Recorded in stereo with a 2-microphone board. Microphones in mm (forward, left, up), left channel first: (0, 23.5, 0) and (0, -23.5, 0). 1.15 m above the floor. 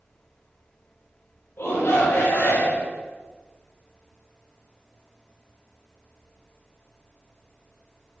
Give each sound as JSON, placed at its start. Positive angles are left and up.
{"t": 1.6, "sound": "a shout", "side_deg": 60, "distance_m": 1.2}